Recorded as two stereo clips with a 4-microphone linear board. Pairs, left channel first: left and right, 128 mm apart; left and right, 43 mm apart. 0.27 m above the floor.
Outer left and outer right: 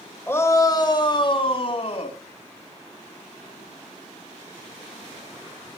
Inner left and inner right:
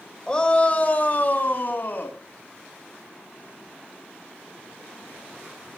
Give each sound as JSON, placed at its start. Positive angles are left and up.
{"t": 0.3, "sound": "a shout", "side_deg": 15, "distance_m": 1.5}